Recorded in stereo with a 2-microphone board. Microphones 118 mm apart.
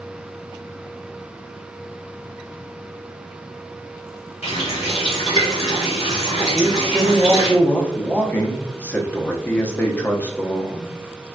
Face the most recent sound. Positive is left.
turn(degrees=15)  # may be behind; listen again after turning